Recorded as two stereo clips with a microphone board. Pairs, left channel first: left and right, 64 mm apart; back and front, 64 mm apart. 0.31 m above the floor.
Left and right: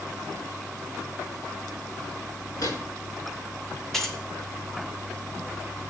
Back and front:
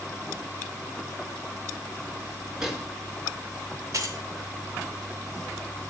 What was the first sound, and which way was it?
A microwave, 80° left.